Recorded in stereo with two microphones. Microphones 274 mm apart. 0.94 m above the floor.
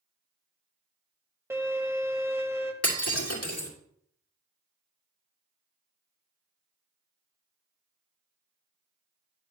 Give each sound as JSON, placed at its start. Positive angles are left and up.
{"t": 1.5, "sound": "a violin", "side_deg": -10, "distance_m": 1.1}
{"t": 2.8, "sound": "breaking glass", "side_deg": 55, "distance_m": 2.5}